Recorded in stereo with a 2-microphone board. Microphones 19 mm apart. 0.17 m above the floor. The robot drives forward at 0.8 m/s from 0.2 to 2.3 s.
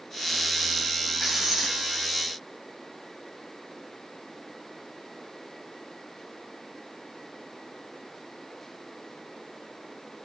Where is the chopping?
I don't hear chopping.